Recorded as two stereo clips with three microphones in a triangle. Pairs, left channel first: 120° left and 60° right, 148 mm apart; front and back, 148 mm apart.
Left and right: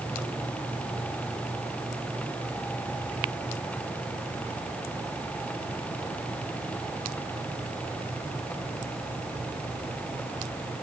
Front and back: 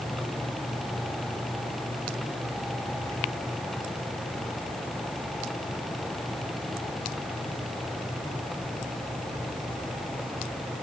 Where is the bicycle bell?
I don't hear a bicycle bell.